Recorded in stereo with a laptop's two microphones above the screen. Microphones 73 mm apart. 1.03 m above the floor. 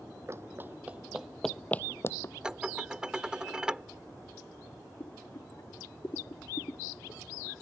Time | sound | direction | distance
0.3 | running footsteps | 40° right (ahead or behind) | ?
2.4 | dishes clattering | 10° right (ahead or behind) | ?
5.0 | boiling | 50° left (ahead or behind) | ?